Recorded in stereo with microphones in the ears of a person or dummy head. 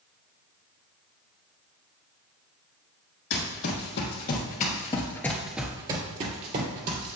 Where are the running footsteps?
65° left (ahead or behind), 3 m; by 7.2 s 55° right (ahead or behind), 2.5 m.